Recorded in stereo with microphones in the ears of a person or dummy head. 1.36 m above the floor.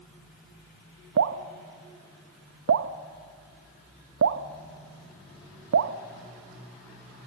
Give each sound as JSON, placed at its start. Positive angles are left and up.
{"t": 1.2, "sound": "dripping", "side_deg": -70, "distance_m": 1.0}